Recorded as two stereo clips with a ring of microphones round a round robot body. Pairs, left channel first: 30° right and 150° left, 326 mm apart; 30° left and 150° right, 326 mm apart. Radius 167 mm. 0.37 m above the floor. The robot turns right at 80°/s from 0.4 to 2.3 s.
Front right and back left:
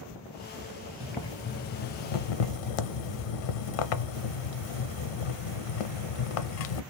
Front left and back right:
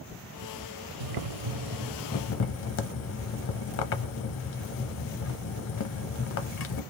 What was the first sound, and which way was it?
Boiling, 130° right.